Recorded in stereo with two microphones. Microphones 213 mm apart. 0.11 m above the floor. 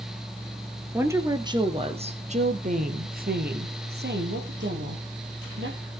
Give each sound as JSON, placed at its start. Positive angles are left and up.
{"t": 0.9, "sound": "a woman speaking", "side_deg": -10, "distance_m": 1.7}